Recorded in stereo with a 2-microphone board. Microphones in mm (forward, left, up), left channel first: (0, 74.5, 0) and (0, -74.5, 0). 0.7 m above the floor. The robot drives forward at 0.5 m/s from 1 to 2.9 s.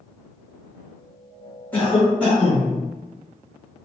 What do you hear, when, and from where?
1.7 s a cough: 10° left (ahead or behind), 1.4 m; by 2.7 s 5° left (ahead or behind), 1.8 m